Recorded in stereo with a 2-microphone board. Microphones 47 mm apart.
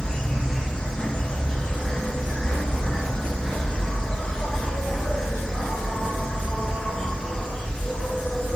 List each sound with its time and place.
0.0 s an insect: 20° left (ahead or behind), 1.0 m